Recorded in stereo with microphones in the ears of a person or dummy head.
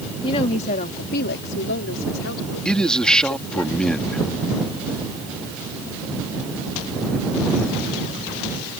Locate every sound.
0.2 s a woman speaking: 30° left (ahead or behind); by 3.6 s 90° left
2.6 s a man speaking: 5° left (ahead or behind)